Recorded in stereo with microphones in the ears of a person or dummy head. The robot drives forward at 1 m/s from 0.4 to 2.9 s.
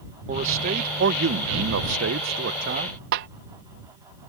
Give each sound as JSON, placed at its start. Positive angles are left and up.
{"t": 0.3, "sound": "a man speaking", "side_deg": -40}
{"t": 3.1, "sound": "a snare drum", "side_deg": -55}